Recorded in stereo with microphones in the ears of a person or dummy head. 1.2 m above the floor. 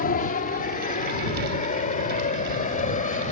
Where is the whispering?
I don't hear whispering.